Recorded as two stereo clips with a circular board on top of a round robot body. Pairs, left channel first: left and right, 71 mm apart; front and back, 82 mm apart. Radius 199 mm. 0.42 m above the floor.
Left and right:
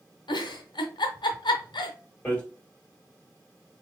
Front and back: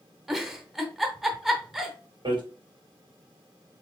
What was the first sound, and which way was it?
A giggle, 95° left.